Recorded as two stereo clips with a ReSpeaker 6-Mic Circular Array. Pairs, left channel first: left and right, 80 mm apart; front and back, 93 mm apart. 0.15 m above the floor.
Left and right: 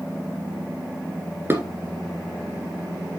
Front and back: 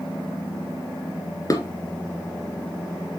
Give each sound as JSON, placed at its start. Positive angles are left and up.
{"t": 1.5, "sound": "dishes clattering", "azimuth_deg": -35, "distance_m": 1.5}